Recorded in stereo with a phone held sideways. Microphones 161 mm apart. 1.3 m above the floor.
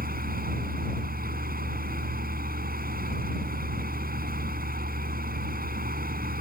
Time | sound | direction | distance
0.0 | a fan | 70° right (ahead or behind) | ?